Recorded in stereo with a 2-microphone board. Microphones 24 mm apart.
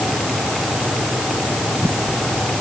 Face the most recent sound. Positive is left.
No sound to turn to.